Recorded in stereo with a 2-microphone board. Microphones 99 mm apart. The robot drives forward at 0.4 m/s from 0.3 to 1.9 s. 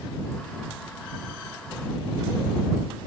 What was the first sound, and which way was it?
Only background noise.